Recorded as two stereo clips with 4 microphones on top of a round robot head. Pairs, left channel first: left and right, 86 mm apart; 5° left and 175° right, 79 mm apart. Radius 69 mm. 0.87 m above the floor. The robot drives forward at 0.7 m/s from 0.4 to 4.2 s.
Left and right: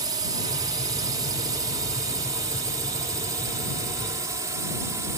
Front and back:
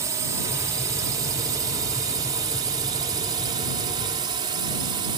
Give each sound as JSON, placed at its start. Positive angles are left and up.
{"t": 0.0, "sound": "a drone", "azimuth_deg": -130}